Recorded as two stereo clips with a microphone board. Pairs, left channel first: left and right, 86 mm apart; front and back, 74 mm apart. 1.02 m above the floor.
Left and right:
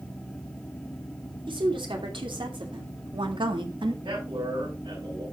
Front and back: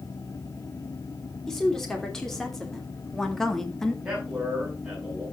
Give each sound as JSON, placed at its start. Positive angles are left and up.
{"t": 1.5, "sound": "a woman speaking", "azimuth_deg": -85, "distance_m": 3.5}
{"t": 4.0, "sound": "a man speaking", "azimuth_deg": -100, "distance_m": 7.0}